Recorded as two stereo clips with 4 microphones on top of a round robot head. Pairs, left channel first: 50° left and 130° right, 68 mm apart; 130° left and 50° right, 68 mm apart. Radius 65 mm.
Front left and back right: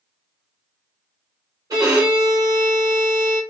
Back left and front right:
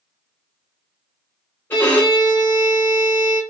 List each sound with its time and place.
1.7 s a violin: 165° right, 1.6 m